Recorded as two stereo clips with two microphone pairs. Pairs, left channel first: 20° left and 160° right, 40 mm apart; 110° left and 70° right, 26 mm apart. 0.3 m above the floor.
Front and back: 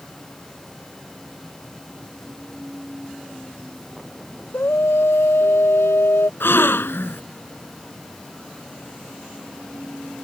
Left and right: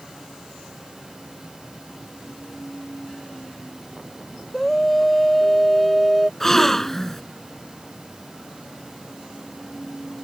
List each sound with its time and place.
4.5 s a scream: 30° left; by 6.3 s 20° left
6.4 s a gasp: 35° left